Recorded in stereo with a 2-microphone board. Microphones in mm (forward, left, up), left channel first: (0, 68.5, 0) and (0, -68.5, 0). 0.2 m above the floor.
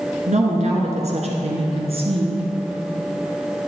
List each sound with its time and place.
0.3 s a woman speaking: 60° right (ahead or behind), 2 m; by 2.4 s 45° right (ahead or behind), 2.5 m